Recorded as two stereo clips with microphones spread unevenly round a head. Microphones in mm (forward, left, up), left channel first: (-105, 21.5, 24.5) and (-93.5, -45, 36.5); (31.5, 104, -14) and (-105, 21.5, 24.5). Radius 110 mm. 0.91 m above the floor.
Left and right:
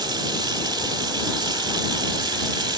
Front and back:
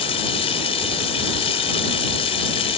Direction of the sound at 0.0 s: 35° right.